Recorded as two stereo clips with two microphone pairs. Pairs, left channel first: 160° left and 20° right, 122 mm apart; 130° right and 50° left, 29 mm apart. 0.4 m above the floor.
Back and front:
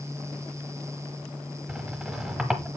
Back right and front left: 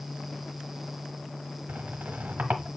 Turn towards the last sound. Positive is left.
turn(degrees=60)